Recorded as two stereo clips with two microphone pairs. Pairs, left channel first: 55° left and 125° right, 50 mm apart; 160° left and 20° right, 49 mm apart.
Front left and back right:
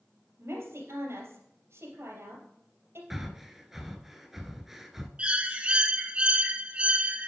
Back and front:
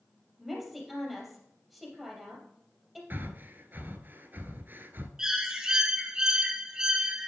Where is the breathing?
45° right, 0.8 m.